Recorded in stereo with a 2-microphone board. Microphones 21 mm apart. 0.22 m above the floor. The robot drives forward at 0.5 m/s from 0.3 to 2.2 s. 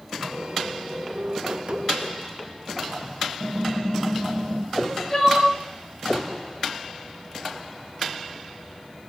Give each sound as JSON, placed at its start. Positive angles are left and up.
{"t": 3.4, "sound": "typing on a keyboard", "side_deg": -55, "distance_m": 1.7}
{"t": 4.7, "sound": "crying", "side_deg": 25, "distance_m": 1.9}